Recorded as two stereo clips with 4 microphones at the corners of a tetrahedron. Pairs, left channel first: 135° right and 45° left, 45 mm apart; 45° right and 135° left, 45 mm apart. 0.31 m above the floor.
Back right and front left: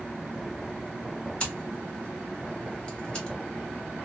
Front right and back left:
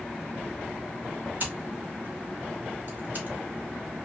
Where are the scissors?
160° left, 1.2 m.